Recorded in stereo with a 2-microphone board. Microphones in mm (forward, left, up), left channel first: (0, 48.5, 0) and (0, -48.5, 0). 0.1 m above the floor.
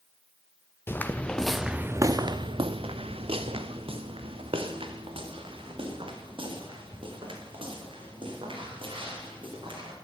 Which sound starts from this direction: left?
Footsteps, at 0.9 s.